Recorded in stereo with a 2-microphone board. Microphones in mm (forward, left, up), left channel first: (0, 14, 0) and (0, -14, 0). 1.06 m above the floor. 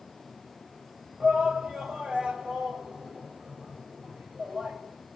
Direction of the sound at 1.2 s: 35° right (ahead or behind).